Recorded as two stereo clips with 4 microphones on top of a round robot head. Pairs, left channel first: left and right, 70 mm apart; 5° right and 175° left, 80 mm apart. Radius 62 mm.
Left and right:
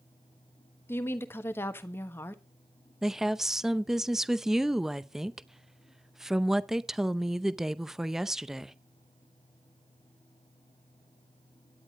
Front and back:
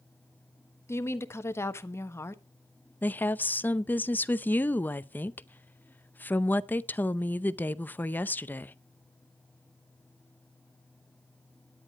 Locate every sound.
0.9 s a woman speaking: 40° left, 1.2 m
3.0 s a woman speaking: 15° right, 0.7 m